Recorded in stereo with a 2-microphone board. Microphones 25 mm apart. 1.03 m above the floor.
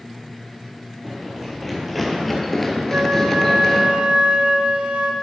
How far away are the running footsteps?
About 1.9 m.